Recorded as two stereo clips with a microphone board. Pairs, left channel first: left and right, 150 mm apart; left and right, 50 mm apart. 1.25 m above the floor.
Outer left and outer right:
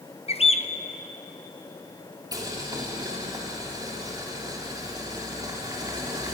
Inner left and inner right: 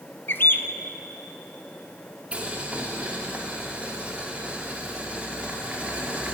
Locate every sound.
0.3 s a bird: 45° left (ahead or behind), 0.8 m
2.3 s boiling: 25° right (ahead or behind), 3 m